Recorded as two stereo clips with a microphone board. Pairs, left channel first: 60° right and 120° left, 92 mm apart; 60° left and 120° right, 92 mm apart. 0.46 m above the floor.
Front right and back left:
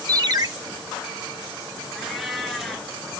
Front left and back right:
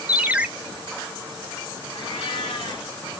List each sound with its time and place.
0.1 s a ringtone: 165° left, 0.6 m
1.9 s a cat meowing: 30° left, 1.4 m